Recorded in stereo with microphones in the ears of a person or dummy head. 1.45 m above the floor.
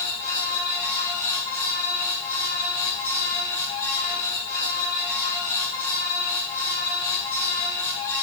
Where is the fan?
10° left (ahead or behind), 5.5 m.